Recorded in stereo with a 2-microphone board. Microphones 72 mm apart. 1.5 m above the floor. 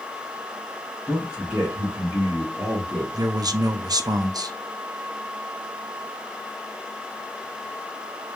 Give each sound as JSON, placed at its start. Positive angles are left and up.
{"t": 1.1, "sound": "a man speaking", "side_deg": -10, "distance_m": 1.8}
{"t": 3.1, "sound": "a man speaking", "side_deg": -60, "distance_m": 0.5}